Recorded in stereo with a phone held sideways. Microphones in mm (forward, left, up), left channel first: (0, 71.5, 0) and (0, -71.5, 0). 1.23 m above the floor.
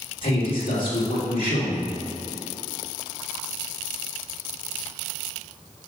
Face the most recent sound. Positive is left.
turn(degrees=85)